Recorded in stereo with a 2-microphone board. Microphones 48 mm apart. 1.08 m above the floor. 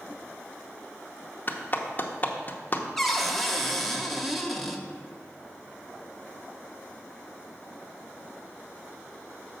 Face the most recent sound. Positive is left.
turn(degrees=5)  # may be behind; listen again after turning